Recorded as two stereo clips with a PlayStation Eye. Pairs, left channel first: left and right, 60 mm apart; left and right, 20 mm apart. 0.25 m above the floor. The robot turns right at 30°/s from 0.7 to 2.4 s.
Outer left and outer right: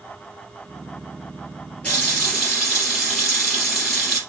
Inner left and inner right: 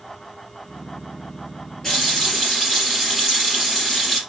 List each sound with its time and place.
1.8 s a running tap: 20° left (ahead or behind), 3 m; by 4.2 s 5° left (ahead or behind), 3 m